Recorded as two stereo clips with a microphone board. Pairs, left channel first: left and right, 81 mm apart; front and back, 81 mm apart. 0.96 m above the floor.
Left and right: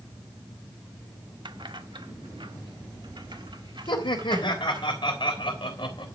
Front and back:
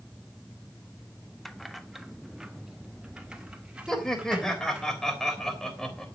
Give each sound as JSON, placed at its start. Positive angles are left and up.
{"t": 1.4, "sound": "keys jangling", "azimuth_deg": -85, "distance_m": 0.8}
{"t": 3.9, "sound": "laughter", "azimuth_deg": 85, "distance_m": 3.5}